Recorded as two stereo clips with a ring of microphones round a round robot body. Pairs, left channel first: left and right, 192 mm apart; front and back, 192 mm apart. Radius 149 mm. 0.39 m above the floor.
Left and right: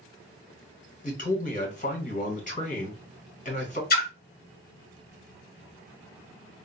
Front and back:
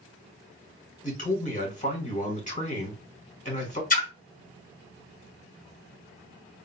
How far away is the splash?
About 1.3 m.